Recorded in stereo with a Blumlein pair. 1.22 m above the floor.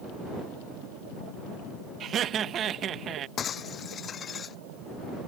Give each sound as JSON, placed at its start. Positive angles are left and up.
{"t": 2.0, "sound": "laughter", "azimuth_deg": -25}
{"t": 3.4, "sound": "breaking glass", "azimuth_deg": 25}